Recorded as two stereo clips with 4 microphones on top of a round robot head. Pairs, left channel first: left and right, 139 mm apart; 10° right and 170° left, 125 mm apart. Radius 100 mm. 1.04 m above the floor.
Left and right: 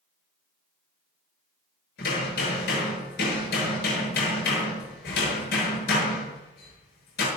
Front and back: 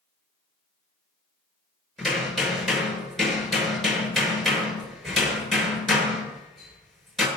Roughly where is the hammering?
Left.